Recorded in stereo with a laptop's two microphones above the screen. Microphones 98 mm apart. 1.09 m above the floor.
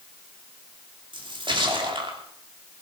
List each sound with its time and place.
1.1 s a splash: 55° right (ahead or behind), 2.5 m